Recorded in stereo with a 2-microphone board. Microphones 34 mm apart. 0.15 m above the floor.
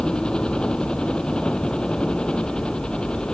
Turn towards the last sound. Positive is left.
turn(degrees=25)  # may be behind; listen again after turning